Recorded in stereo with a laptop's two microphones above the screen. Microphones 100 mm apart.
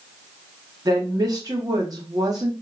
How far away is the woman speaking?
About 3 m.